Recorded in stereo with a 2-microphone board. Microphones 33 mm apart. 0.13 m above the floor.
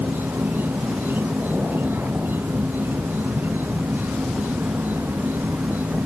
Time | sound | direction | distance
0.0 | an insect | 70° right (ahead or behind) | ?